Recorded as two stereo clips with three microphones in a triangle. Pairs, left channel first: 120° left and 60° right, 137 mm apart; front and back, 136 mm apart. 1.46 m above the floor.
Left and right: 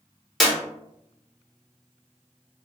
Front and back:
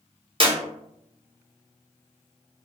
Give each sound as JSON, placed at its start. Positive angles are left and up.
{"t": 0.4, "sound": "a clap", "azimuth_deg": -150, "distance_m": 0.8}